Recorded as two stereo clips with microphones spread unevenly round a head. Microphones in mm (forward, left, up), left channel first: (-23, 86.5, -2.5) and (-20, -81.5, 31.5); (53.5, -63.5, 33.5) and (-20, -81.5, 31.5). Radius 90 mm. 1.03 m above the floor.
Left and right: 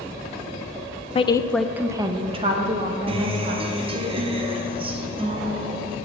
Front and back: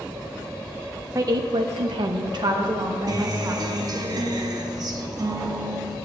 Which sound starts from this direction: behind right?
A guitar, at 3.1 s.